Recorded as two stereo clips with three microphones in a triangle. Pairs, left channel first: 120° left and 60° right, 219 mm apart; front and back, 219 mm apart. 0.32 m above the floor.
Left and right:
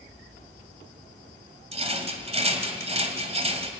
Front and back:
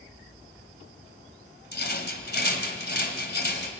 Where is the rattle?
10° right, 2.5 m.